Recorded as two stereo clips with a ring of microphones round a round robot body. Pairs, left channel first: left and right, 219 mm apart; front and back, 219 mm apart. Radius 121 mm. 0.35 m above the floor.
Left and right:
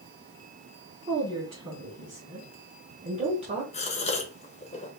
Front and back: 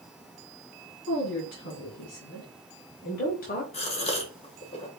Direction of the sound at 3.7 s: 45° left.